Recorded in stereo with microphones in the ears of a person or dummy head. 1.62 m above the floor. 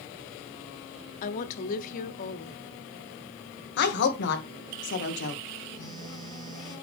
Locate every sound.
1.2 s a woman speaking: 45° left (ahead or behind), 0.9 m
3.8 s a woman speaking: 60° left (ahead or behind), 1.4 m
5.8 s a phone buzzing: 35° right (ahead or behind), 1.9 m